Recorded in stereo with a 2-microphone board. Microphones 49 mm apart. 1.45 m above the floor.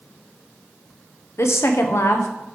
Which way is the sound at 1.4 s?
65° left (ahead or behind).